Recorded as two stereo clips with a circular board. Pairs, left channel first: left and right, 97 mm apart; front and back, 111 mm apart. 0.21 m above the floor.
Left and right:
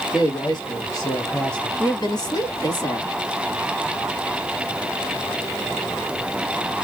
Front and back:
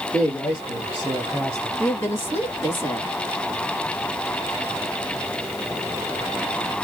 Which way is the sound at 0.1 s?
60° left.